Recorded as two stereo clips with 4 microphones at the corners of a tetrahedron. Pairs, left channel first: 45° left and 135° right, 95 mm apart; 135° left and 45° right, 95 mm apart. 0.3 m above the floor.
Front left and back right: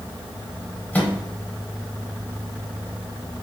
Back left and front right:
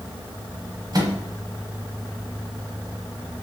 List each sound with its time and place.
0.9 s a microwave: 25° right, 0.9 m